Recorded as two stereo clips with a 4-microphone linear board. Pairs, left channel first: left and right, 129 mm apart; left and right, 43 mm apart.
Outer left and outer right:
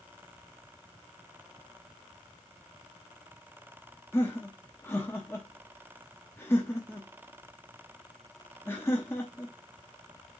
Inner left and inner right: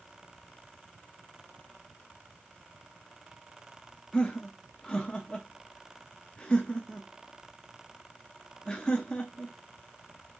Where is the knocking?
I don't hear knocking.